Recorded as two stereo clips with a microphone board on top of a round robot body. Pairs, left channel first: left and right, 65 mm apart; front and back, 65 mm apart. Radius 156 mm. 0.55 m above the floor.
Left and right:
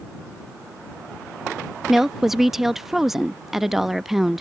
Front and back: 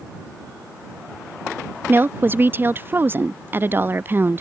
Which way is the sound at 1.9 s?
175° right.